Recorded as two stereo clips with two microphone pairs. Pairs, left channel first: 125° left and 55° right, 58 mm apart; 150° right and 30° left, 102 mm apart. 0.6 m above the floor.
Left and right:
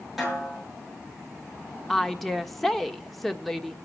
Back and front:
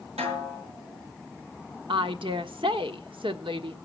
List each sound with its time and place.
0.2 s a snare drum: 25° left, 7.5 m
1.9 s a woman speaking: 35° left, 1.3 m